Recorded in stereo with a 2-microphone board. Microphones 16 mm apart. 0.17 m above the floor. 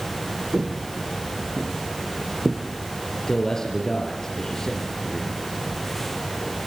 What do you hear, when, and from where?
0.5 s footsteps: 85° right, 3.5 m; by 2.6 s 70° right (ahead or behind), 3 m
3.3 s a man speaking: 30° left (ahead or behind), 4 m